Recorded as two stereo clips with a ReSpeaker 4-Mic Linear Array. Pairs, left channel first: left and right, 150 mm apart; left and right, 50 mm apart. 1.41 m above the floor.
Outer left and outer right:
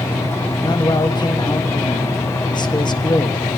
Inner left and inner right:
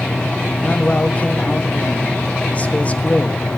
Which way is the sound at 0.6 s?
30° left (ahead or behind).